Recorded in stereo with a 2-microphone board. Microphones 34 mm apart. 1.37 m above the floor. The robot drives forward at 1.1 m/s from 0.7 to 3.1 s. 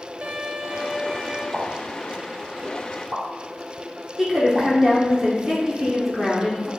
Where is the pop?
30° right (ahead or behind), 1.9 m; by 4.7 s 45° right (ahead or behind), 1.3 m.